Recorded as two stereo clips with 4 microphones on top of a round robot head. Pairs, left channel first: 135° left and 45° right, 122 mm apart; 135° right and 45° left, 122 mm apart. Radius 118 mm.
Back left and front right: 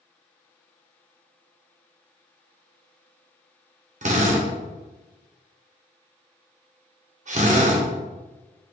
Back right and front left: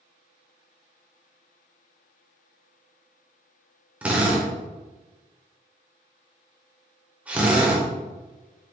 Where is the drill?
35° right, 1.6 m.